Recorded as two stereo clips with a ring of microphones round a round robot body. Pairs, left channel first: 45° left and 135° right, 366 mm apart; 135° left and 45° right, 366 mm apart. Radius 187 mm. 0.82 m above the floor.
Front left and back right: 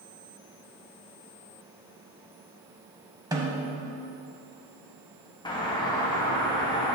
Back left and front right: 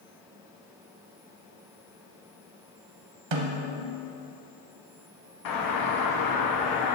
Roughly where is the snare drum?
Ahead right.